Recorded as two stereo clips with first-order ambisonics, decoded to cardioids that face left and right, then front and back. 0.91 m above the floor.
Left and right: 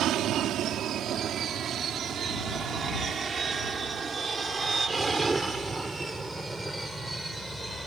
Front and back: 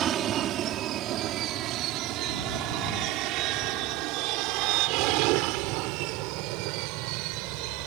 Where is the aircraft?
130° right; by 7.9 s straight behind.